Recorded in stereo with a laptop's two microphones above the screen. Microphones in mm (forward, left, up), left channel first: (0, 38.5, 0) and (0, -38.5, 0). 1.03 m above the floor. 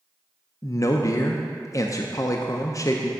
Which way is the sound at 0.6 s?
45° left (ahead or behind).